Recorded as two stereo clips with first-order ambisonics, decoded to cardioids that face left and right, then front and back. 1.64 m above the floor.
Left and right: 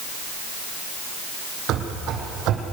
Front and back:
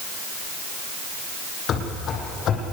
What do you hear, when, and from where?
1.7 s running footsteps: 50° right, 3.5 m